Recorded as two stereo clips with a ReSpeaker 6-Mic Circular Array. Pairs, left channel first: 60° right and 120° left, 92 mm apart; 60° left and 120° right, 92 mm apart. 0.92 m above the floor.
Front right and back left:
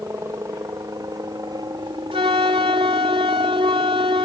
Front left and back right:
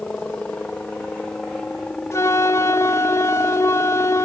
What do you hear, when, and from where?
0.0 s a helicopter: 125° left; by 4.3 s 150° left
2.1 s a flute: 115° left